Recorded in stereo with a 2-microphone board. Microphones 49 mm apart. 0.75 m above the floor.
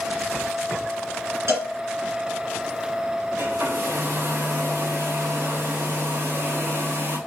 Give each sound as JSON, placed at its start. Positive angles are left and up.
{"t": 1.5, "sound": "a cowbell", "side_deg": -75, "distance_m": 2.0}
{"t": 3.4, "sound": "a hair dryer", "side_deg": -70, "distance_m": 3.0}